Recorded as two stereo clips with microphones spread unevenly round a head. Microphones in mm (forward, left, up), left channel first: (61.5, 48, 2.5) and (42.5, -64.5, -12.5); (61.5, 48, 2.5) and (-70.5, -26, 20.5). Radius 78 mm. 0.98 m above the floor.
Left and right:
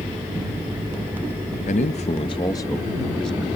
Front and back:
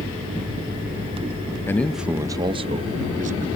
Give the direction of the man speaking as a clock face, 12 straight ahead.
9 o'clock.